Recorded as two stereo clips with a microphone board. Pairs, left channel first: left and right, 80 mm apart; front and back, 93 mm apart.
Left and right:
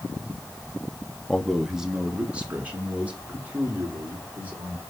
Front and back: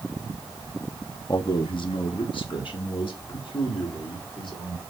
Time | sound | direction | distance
1.3 | a man speaking | 15° left | 0.7 m